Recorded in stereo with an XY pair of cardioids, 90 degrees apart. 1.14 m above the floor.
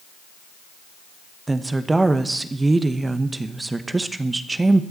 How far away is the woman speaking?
About 1.0 m.